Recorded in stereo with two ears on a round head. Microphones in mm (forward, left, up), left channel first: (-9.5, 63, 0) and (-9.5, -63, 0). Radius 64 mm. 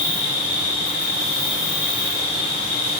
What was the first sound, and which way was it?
An insect, 55° right (ahead or behind).